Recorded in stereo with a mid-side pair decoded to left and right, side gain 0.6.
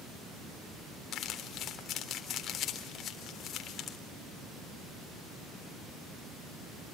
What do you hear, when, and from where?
1.1 s crumpling: 50° left, 3.5 m